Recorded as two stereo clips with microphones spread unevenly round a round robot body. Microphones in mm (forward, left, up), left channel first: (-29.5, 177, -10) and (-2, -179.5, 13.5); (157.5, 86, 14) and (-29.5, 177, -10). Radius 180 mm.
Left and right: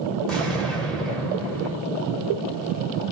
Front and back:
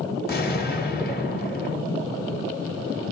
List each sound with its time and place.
0.3 s an explosion: 10° left, 1.7 m